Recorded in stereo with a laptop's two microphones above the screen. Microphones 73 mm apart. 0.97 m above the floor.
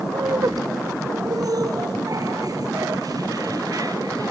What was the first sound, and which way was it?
Laughter, 55° right (ahead or behind).